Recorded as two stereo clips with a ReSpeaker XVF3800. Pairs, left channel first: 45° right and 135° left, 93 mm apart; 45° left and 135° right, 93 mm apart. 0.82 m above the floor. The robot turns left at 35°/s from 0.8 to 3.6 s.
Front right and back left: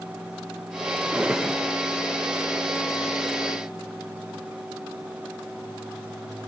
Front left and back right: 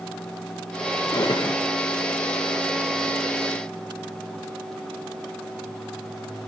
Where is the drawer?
65° left, 0.6 m; by 1.6 s 45° left, 0.6 m.